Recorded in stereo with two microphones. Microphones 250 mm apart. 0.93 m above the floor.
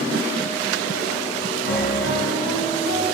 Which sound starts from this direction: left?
A piano, at 1.6 s.